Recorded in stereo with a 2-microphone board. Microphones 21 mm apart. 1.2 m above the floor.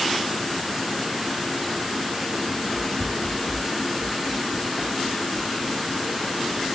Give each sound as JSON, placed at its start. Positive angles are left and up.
{"t": 2.5, "sound": "running footsteps", "side_deg": 0, "distance_m": 4.0}